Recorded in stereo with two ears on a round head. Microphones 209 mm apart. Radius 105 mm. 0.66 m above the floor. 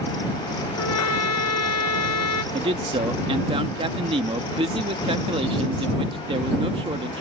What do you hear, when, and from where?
0.8 s a trumpet: 80° left
2.5 s a man speaking: 25° right (ahead or behind)